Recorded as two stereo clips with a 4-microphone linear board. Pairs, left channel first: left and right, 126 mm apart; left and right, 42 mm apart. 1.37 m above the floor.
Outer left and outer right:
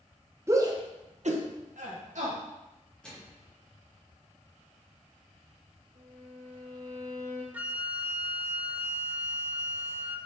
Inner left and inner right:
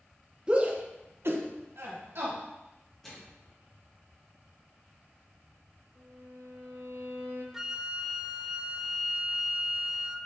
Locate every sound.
0.5 s a shout: 20° right (ahead or behind), 1.3 m; by 2.4 s 65° right (ahead or behind), 1.8 m
3.0 s a microwave: 10° left (ahead or behind), 2.5 m
6.0 s a violin: 55° right (ahead or behind), 2 m
7.5 s a flute: 10° right (ahead or behind), 0.6 m